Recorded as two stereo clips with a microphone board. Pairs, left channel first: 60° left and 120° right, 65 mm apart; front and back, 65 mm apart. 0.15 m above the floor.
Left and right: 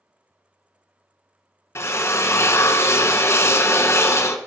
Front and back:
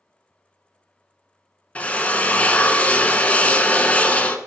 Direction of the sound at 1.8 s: 60° left.